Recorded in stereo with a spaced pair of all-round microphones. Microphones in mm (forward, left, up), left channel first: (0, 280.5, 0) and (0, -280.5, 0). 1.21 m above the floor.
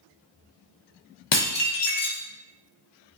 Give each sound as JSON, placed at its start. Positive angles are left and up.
{"t": 1.3, "sound": "dishes clattering", "side_deg": 50, "distance_m": 0.6}